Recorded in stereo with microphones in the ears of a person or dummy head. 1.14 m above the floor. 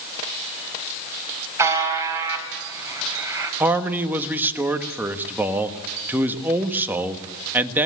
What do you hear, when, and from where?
1.6 s a buzzer: 20° right (ahead or behind), 4 m
3.6 s a man speaking: 10° right (ahead or behind), 1.3 m